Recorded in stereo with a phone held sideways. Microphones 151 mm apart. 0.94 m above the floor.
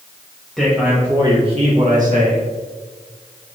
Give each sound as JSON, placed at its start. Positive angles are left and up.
{"t": 0.6, "sound": "a man speaking", "side_deg": 0, "distance_m": 1.2}